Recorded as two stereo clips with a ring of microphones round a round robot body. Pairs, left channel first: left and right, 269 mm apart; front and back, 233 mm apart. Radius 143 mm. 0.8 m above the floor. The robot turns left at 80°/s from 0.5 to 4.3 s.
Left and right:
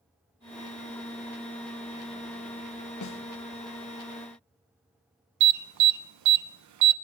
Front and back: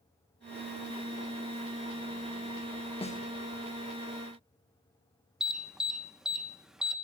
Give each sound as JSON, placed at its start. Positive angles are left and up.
{"t": 3.0, "sound": "a snare drum", "azimuth_deg": 70, "distance_m": 1.5}
{"t": 5.4, "sound": "an alarm", "azimuth_deg": -90, "distance_m": 1.0}